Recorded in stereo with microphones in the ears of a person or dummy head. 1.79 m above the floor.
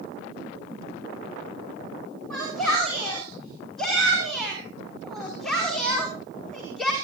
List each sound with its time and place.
2.3 s a shout: 5° left (ahead or behind), 7 m